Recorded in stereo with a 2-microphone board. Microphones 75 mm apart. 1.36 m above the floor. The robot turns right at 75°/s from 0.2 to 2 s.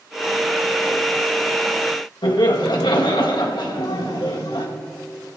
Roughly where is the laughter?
Left.